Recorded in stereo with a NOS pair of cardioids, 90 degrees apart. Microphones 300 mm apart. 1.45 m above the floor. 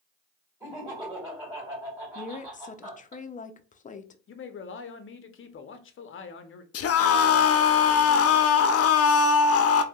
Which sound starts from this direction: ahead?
Laughter, at 0.6 s.